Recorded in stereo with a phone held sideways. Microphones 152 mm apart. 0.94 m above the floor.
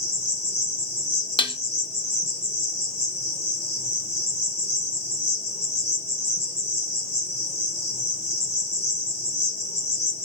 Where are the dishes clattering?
35° left (ahead or behind), 0.6 m.